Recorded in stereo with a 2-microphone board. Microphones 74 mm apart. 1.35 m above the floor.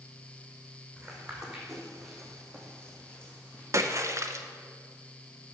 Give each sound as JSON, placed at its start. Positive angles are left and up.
{"t": 1.0, "sound": "footsteps", "side_deg": -10, "distance_m": 2.5}
{"t": 3.7, "sound": "a splash", "side_deg": -40, "distance_m": 0.6}